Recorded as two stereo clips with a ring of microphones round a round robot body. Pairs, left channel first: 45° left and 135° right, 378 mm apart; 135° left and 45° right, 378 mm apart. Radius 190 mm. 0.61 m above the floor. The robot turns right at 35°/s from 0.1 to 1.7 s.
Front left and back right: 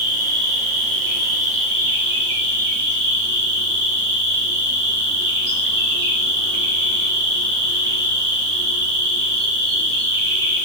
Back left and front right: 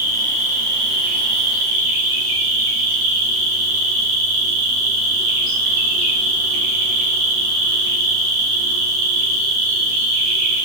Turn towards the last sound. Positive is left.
turn(degrees=-75)